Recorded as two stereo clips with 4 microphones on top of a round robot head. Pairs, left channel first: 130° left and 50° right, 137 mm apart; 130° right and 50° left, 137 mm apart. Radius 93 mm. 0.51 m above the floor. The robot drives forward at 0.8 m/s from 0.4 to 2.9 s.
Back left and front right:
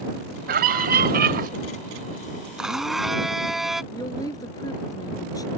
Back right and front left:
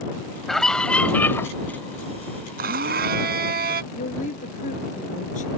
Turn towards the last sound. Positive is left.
turn(degrees=-165)